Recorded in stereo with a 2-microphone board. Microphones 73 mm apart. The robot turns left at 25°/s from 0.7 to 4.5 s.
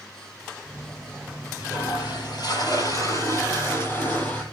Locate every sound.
1.6 s a toilet flushing: 85° left, 9 m; by 4.4 s 15° left, 9 m